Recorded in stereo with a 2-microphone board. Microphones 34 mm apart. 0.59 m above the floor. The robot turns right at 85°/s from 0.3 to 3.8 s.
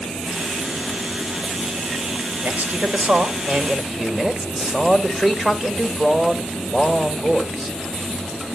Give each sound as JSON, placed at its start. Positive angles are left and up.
{"t": 2.4, "sound": "a man speaking", "azimuth_deg": -140, "distance_m": 1.9}